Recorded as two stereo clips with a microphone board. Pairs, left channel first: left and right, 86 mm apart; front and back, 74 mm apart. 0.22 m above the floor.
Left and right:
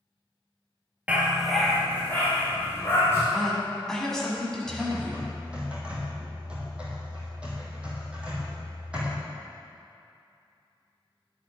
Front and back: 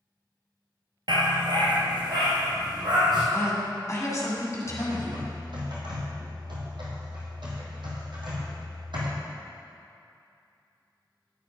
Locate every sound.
1.1 s a dog barking: 165° right, 1.1 m; by 3.2 s 150° left, 3 m
3.3 s a woman speaking: 10° left, 1.7 m
4.7 s typing on a keyboard: 165° right, 2 m